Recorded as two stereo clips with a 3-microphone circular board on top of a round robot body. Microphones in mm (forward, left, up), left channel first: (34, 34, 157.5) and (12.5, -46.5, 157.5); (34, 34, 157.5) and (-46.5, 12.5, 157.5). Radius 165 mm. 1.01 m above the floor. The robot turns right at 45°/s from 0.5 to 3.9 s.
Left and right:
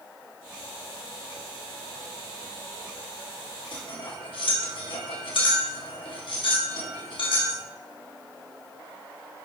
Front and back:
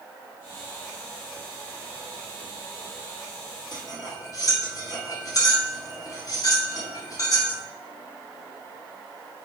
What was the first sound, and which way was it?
Cutlery clinking, 55° left.